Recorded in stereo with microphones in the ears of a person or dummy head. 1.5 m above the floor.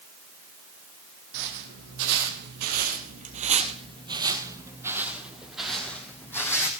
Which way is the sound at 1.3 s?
65° right (ahead or behind).